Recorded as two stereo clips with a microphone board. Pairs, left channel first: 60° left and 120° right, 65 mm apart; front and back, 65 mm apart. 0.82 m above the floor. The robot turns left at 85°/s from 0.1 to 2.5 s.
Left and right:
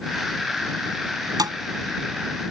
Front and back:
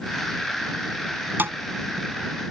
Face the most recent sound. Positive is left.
turn(degrees=145)